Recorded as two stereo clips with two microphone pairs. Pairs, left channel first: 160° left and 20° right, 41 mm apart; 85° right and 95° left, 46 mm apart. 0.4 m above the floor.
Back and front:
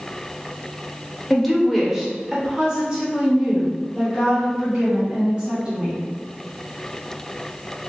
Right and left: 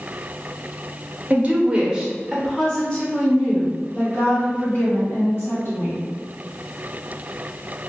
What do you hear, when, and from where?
1.3 s a woman speaking: 70° left, 1.0 m; by 6.0 s 80° right, 2 m